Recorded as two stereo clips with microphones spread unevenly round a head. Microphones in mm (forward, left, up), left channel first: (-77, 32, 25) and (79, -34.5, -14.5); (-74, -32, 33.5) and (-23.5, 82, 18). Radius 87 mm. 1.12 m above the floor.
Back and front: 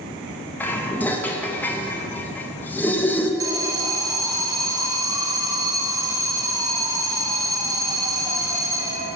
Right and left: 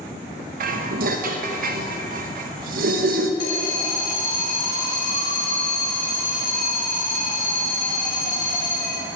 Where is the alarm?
90° right, 0.9 m.